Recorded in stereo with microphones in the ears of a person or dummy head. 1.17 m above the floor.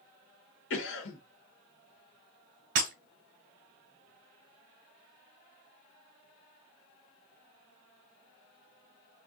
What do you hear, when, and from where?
0.7 s a cough: 75° left (ahead or behind), 1.3 m
2.8 s breaking glass: 70° right (ahead or behind), 2 m